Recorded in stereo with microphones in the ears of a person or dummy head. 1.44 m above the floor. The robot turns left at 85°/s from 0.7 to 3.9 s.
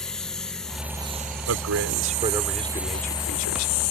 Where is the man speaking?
90° right; by 3.7 s 80° left.